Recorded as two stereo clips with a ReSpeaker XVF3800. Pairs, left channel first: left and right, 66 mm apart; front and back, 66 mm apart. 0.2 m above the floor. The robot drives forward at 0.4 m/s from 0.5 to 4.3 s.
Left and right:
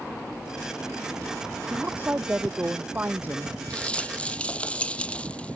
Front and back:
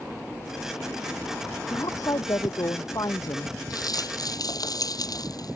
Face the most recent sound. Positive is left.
turn(degrees=20)